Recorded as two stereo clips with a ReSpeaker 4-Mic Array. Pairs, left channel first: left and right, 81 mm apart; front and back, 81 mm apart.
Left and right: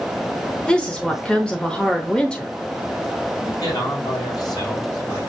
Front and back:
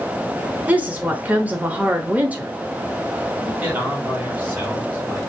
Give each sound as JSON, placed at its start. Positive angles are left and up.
{"t": 0.7, "sound": "a woman speaking", "azimuth_deg": 150, "distance_m": 0.9}
{"t": 3.4, "sound": "a man speaking", "azimuth_deg": 110, "distance_m": 3.0}